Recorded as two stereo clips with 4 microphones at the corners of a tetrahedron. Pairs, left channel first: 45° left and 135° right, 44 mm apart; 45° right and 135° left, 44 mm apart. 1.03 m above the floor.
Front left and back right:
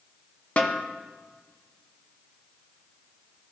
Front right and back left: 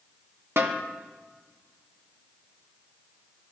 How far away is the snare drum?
About 0.7 m.